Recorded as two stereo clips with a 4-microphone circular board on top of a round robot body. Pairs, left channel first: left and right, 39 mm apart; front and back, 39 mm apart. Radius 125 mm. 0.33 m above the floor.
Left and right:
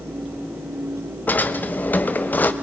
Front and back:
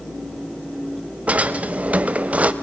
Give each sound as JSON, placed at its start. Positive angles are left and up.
{"t": 1.3, "sound": "a drawer", "azimuth_deg": 130, "distance_m": 1.2}